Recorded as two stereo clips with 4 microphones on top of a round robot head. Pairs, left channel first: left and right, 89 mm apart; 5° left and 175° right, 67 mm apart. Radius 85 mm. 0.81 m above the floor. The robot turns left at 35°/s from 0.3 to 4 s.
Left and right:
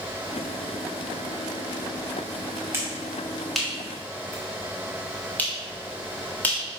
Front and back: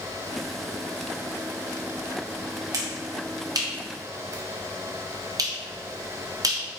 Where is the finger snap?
150° right, 1.6 m; by 6.6 s 165° left, 1.6 m.